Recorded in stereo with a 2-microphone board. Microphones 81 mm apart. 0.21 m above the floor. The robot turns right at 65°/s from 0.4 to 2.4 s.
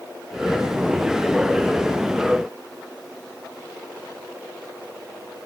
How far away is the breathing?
I don't hear breathing.